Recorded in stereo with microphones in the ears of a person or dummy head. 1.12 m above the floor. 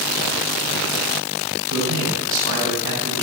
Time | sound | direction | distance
1.7 | a man speaking | 70° right (ahead or behind) | 8.5 m